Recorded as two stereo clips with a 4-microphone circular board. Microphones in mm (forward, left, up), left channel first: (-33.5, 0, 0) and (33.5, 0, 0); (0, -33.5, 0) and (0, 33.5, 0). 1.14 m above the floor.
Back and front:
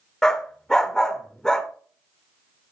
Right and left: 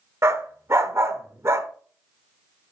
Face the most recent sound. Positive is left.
turn(degrees=100)